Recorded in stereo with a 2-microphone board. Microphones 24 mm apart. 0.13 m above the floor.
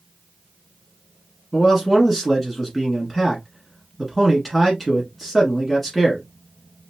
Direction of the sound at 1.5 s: 10° left (ahead or behind).